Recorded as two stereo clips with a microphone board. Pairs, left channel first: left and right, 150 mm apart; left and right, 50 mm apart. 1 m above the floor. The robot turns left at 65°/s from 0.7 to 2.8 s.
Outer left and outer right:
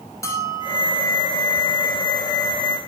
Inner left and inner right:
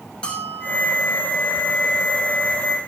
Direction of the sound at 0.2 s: 20° left (ahead or behind).